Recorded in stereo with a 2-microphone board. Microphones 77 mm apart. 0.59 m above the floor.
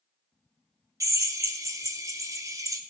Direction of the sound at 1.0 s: 45° right (ahead or behind).